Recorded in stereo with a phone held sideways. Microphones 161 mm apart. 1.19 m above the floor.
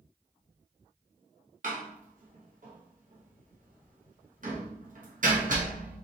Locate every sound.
1.6 s a door slam: 60° right (ahead or behind), 0.9 m